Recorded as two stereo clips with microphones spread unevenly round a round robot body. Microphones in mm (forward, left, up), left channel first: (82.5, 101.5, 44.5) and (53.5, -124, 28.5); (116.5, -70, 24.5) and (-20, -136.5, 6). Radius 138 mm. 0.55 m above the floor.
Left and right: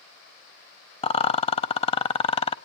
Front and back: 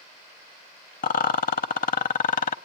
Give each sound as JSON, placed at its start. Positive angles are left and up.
{"t": 1.0, "sound": "a rattle", "azimuth_deg": 20, "distance_m": 0.6}